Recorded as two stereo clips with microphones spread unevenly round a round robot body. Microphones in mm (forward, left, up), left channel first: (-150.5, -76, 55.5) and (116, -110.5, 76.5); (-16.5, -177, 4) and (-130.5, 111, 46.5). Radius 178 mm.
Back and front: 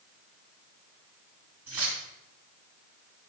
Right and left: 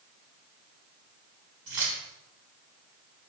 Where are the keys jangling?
75° left, 4 m.